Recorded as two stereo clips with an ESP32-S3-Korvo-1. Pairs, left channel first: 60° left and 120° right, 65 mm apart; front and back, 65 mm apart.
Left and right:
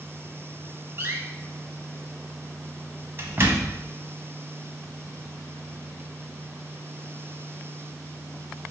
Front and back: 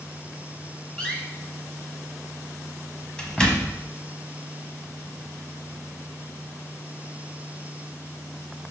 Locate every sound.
1.0 s a door slam: 75° right, 1.0 m